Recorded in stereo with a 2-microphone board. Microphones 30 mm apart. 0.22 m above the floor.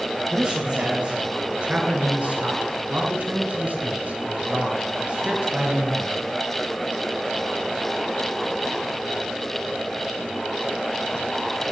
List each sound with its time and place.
0.3 s a man speaking: 30° right (ahead or behind), 5.5 m